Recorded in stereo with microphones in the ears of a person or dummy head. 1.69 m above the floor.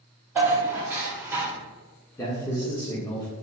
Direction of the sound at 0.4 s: 15° right (ahead or behind).